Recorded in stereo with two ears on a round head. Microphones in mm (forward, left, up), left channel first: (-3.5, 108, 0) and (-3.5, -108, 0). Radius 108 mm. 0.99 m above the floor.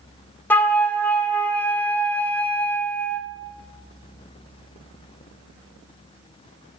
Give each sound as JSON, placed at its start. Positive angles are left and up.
{"t": 0.5, "sound": "a flute", "side_deg": 10, "distance_m": 0.6}